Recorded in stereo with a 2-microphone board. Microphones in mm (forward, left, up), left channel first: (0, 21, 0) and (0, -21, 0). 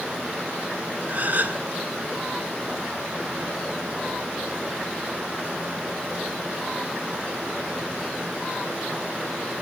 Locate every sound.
1.1 s a gasp: 40° right (ahead or behind), 1.2 m